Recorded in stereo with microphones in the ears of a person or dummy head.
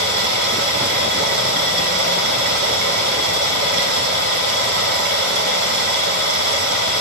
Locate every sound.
0.0 s running water: 60° right (ahead or behind), 1.9 m